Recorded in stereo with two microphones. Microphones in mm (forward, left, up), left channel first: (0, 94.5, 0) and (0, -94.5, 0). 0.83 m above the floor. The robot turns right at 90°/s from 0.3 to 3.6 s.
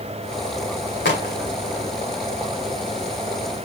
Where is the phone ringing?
No phone ringing in this recording.